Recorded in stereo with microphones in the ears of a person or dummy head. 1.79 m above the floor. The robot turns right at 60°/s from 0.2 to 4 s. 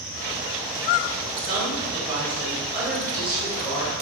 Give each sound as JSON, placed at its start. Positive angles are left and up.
{"t": 1.4, "sound": "a woman speaking", "azimuth_deg": -105, "distance_m": 1.8}